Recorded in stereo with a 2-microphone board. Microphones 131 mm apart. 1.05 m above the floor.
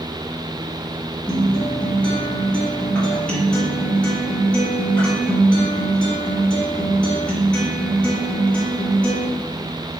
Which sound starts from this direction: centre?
A guitar, at 1.3 s.